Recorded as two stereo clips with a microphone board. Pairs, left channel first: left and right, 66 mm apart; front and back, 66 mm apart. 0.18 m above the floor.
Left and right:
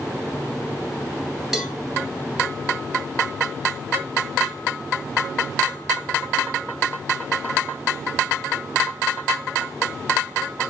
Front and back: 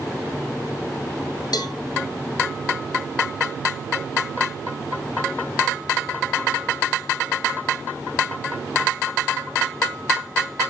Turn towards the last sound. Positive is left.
turn(degrees=-5)